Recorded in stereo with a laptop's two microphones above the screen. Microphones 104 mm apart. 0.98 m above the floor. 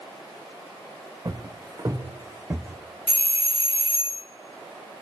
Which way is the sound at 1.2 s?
40° right (ahead or behind).